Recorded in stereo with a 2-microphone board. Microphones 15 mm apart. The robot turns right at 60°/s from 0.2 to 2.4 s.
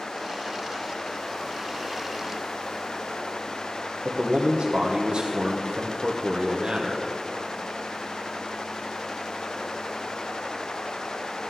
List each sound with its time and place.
4.0 s a man speaking: 75° right (ahead or behind), 1.0 m